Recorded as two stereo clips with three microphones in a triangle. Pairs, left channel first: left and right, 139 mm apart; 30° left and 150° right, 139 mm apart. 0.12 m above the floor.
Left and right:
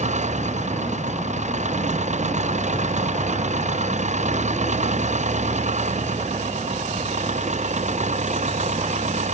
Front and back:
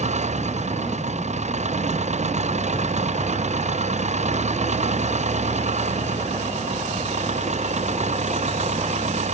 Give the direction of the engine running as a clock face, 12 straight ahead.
4 o'clock.